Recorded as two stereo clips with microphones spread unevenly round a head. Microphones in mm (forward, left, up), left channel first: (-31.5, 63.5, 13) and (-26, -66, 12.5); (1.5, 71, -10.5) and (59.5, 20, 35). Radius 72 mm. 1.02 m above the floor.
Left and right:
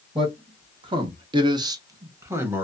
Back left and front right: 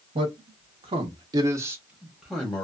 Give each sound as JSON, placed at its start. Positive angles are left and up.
{"t": 0.1, "sound": "a man speaking", "azimuth_deg": -30, "distance_m": 0.8}